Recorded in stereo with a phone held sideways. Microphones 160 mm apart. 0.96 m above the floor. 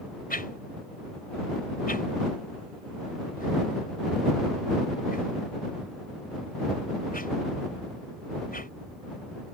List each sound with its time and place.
0.3 s a whoosh: 65° left (ahead or behind)